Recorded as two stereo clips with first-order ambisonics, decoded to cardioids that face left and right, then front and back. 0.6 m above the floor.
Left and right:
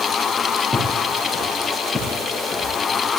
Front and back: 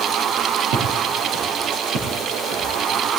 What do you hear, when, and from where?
0.7 s footsteps: 170° right, 5 m